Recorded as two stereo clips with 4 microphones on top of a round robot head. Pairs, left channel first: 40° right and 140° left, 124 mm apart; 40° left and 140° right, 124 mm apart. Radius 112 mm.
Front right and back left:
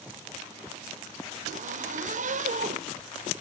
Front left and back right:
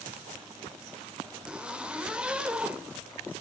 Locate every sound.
1.5 s a zipper: 135° left, 1.9 m